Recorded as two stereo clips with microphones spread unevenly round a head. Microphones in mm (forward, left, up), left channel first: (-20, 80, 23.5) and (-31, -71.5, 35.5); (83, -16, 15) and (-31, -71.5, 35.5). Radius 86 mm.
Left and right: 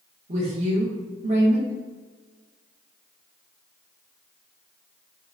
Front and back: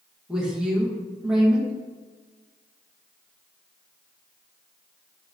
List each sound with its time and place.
0.3 s a woman speaking: 65° right, 0.8 m